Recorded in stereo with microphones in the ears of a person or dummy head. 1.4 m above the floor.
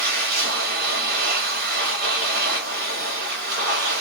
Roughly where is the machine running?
Right.